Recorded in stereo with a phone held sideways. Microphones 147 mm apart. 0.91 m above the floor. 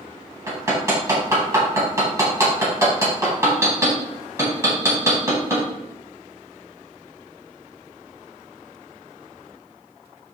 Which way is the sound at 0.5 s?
20° right (ahead or behind).